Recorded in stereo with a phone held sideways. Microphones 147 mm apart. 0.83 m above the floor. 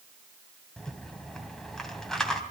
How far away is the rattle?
About 2.5 m.